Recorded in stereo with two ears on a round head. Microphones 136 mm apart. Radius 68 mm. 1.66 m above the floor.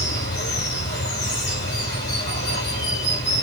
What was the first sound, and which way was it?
Running water, 75° left (ahead or behind).